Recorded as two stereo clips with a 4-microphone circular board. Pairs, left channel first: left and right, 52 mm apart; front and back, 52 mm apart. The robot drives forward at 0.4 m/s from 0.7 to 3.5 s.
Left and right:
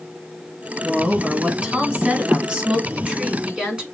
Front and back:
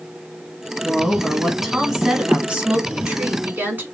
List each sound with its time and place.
0.8 s a woman speaking: 50° right, 1.1 m; by 3.9 s 155° right, 1.3 m